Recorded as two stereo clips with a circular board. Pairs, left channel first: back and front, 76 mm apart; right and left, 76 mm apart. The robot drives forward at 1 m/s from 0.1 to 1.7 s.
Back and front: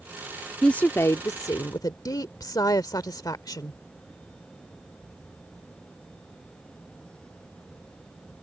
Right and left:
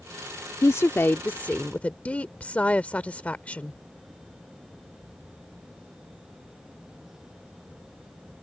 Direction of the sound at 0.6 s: 105° right.